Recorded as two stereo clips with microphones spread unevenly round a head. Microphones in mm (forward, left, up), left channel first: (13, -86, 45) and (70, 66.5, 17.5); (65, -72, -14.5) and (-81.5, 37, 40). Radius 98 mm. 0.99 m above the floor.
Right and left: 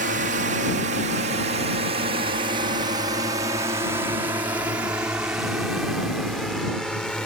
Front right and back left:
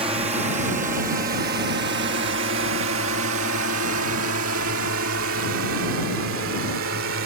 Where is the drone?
75° left; by 7.3 s 160° left.